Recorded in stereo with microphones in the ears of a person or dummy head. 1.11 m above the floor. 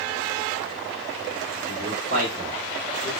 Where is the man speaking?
50° right (ahead or behind), 1.3 m; by 3.1 s centre (ahead or behind), 1.0 m.